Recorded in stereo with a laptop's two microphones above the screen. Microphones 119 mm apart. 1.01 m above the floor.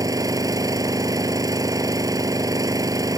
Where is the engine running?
30° right (ahead or behind).